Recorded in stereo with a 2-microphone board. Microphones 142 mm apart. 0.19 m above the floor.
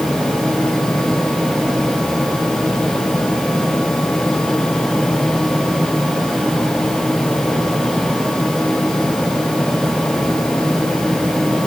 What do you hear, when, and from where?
Only background noise.